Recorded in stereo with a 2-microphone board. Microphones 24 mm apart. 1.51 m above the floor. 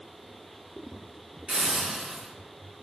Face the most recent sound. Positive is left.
turn(degrees=-55)  # may be behind; listen again after turning